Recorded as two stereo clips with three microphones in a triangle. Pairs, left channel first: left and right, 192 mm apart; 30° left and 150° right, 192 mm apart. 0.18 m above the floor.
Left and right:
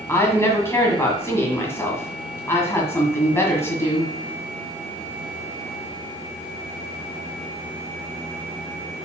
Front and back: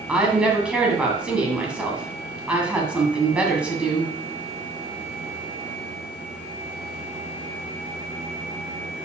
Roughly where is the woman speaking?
Behind left.